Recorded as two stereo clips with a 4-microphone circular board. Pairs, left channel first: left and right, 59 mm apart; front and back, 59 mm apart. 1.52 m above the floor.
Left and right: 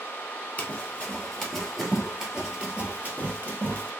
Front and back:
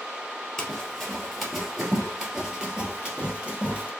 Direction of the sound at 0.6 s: 70° left.